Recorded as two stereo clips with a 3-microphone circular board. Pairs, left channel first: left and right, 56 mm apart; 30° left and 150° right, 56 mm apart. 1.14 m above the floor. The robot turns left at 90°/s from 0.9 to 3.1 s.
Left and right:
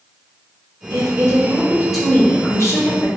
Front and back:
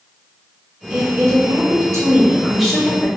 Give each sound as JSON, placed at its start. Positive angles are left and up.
{"t": 0.9, "sound": "a woman speaking", "azimuth_deg": -85, "distance_m": 0.8}